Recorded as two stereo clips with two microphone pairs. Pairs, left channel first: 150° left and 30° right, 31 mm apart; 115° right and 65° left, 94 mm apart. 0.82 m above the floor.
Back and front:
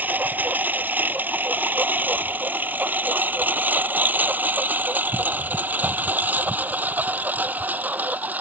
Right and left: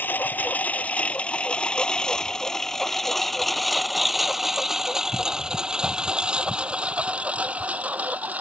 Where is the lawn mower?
45° right; by 8.4 s 10° right.